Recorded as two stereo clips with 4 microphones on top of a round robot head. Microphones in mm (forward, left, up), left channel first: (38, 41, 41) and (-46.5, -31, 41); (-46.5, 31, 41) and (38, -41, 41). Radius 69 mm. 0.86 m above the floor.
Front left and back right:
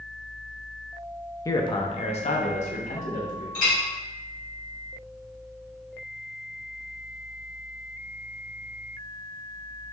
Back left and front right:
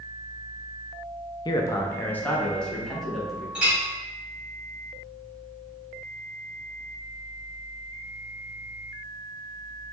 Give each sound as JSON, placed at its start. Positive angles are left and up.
{"t": 1.4, "sound": "a man speaking", "azimuth_deg": 95, "distance_m": 0.5}
{"t": 3.5, "sound": "a clink", "azimuth_deg": 40, "distance_m": 1.8}